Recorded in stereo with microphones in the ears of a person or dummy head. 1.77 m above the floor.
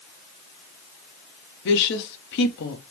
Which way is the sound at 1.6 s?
65° left (ahead or behind).